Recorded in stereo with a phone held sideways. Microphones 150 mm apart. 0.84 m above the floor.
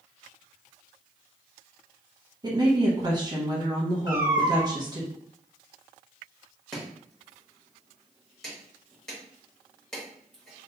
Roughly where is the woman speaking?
Right.